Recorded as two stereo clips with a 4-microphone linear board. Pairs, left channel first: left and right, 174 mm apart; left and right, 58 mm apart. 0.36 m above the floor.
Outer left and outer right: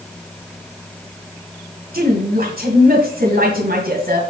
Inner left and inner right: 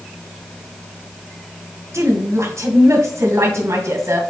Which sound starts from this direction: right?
A woman speaking, at 1.9 s.